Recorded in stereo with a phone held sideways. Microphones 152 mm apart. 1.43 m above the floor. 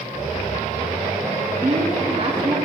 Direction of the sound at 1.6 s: 40° right (ahead or behind).